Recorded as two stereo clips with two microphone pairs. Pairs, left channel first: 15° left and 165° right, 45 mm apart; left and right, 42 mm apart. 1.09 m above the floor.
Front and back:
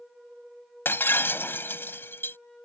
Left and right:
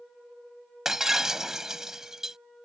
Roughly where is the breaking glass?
Ahead.